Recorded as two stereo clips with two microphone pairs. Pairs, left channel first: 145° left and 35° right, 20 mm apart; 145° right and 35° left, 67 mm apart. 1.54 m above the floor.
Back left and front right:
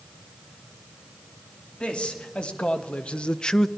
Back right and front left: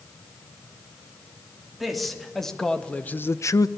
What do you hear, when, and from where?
1.8 s a man speaking: 125° left, 3 m; by 3.7 s 145° right, 0.8 m